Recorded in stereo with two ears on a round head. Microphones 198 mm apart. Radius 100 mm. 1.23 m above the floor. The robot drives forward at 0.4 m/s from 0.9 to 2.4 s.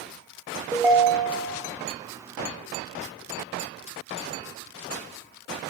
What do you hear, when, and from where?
0.7 s a ringtone: 10° right (ahead or behind), 0.9 m; by 1.6 s 5° right (ahead or behind), 1.1 m